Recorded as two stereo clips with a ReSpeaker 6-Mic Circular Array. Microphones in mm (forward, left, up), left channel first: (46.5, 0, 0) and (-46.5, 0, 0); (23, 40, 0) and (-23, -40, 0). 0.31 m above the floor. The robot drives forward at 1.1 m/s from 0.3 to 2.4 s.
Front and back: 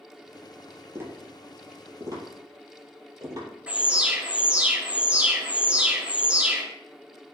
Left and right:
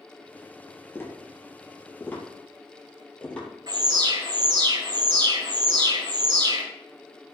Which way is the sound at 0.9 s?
120° left.